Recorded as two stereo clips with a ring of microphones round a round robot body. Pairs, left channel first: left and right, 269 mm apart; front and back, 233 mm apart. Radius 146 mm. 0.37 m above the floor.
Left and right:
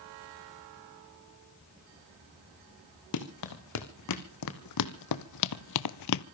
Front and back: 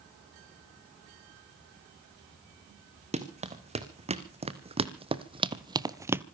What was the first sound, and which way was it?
Running footsteps, 120° left.